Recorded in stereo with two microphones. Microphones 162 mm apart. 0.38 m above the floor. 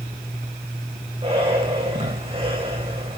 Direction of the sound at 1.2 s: 35° right (ahead or behind).